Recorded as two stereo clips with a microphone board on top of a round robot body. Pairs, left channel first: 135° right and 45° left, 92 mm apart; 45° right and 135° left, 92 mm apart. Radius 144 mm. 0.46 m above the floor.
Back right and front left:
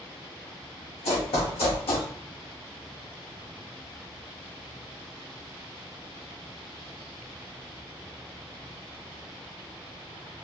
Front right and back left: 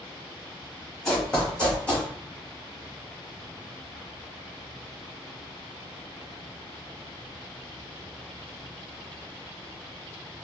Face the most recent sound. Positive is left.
turn(degrees=-120)